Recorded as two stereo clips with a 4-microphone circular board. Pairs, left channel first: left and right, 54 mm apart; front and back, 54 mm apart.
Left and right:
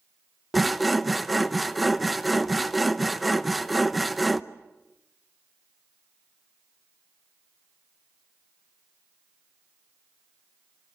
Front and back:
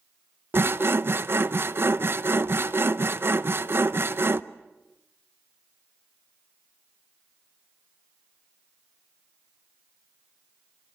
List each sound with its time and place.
0.5 s sawing: straight behind, 0.7 m